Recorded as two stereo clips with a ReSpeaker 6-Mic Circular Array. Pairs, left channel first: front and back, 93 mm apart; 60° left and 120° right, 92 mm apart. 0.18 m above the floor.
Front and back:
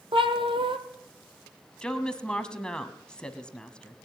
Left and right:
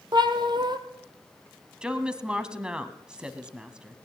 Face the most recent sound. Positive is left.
turn(degrees=-60)